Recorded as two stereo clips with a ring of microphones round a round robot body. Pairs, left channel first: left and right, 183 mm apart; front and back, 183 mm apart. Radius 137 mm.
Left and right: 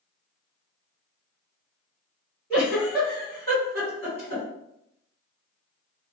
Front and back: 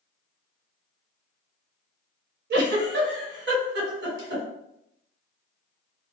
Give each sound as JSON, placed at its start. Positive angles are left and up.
{"t": 2.5, "sound": "a giggle", "azimuth_deg": 175, "distance_m": 1.4}